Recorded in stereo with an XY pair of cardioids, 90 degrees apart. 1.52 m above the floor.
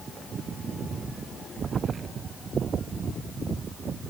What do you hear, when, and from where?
Only background noise.